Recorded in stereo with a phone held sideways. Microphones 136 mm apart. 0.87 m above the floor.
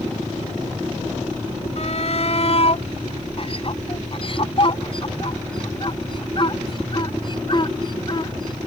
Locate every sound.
1.8 s a shout: 55° left (ahead or behind); by 8.7 s 35° left (ahead or behind)